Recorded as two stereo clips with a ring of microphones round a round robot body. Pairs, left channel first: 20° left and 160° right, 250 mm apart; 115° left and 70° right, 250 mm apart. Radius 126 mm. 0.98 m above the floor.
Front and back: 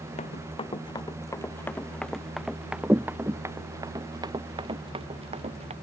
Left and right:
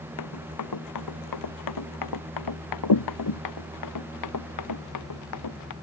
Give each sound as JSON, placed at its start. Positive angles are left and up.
{"t": 0.2, "sound": "running footsteps", "azimuth_deg": 90}